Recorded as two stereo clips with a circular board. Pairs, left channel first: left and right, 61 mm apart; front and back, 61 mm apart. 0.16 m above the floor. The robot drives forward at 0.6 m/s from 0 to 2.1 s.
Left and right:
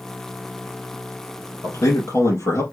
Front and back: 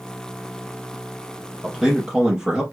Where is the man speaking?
100° left, 1.7 m; by 2.6 s 110° left, 1.8 m.